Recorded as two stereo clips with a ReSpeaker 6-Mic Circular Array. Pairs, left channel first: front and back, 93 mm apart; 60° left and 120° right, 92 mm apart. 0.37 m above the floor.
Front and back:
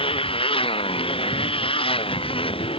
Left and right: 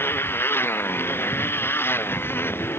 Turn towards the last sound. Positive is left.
turn(degrees=-10)